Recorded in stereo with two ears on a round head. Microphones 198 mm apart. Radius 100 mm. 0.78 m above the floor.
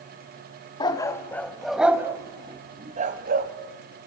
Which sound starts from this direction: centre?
A dog barking, at 0.8 s.